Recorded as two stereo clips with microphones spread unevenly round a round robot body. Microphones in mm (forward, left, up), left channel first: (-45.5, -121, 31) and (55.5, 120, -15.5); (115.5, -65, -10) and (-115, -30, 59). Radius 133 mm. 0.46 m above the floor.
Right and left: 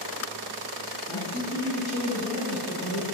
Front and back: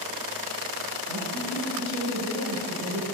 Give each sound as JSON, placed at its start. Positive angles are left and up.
{"t": 1.1, "sound": "a man speaking", "azimuth_deg": -175, "distance_m": 4.5}